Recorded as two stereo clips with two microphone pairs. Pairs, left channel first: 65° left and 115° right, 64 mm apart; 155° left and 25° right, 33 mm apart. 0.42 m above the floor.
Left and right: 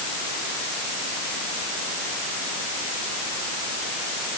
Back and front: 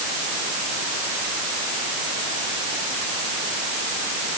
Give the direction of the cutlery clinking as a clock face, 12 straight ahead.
No cutlery clinking in this recording.